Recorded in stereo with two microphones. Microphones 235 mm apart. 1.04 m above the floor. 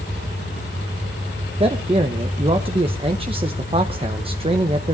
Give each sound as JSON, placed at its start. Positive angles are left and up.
{"t": 1.6, "sound": "a man speaking", "side_deg": -25, "distance_m": 1.0}